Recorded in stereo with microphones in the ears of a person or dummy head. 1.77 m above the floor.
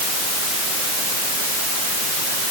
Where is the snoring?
No snoring in this recording.